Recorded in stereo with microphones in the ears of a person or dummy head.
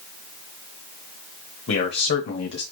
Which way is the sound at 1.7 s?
55° left (ahead or behind).